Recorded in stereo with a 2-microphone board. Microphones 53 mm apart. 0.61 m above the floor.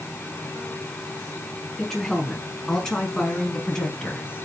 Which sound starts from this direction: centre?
A woman speaking, at 1.8 s.